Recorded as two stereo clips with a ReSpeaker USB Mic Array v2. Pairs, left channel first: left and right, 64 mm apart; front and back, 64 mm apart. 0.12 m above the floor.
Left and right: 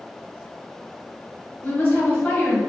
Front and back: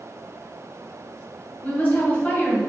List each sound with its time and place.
1.6 s a woman speaking: 40° left, 1.8 m